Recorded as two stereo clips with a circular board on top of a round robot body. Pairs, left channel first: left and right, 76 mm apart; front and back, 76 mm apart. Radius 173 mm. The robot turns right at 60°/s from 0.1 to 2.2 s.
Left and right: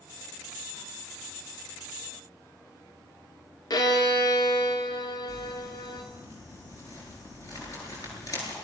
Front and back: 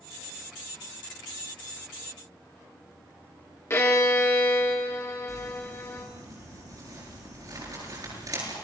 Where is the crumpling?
135° left, 9.5 m.